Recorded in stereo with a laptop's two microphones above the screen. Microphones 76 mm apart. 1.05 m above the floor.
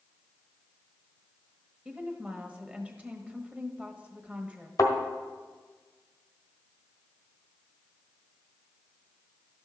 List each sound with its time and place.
1.9 s a woman speaking: 15° right (ahead or behind), 1.2 m
4.8 s a thud: 50° left (ahead or behind), 1.3 m